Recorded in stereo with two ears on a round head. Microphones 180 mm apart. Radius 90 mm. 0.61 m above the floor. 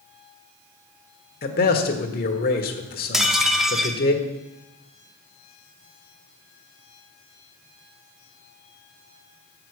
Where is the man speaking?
45° left (ahead or behind), 1.4 m.